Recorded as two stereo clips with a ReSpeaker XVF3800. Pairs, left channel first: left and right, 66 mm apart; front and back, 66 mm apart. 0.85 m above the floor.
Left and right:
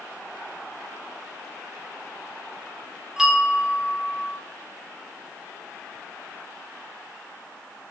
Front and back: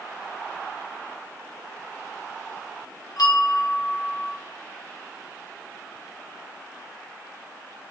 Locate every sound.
3.2 s a bell: 5° right, 0.6 m